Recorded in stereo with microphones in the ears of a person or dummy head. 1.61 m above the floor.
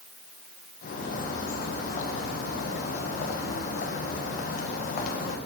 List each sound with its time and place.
0.8 s a bird: 50° left (ahead or behind), 1.1 m